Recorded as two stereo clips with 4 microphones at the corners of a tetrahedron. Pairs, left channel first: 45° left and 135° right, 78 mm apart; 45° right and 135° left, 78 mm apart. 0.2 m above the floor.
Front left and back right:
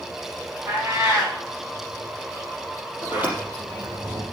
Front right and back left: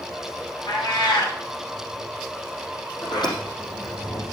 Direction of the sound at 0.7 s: 65° right.